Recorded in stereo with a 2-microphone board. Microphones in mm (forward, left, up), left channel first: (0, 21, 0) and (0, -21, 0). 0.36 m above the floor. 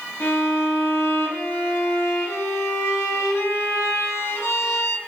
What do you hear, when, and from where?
0.2 s a violin: 75° left (ahead or behind), 0.9 m